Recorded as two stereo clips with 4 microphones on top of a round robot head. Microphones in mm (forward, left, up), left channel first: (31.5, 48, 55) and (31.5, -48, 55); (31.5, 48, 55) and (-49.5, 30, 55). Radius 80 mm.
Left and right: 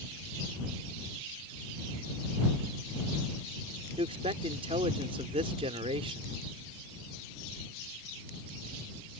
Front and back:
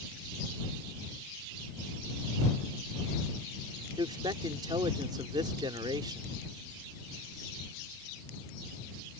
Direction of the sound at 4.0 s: 125° right.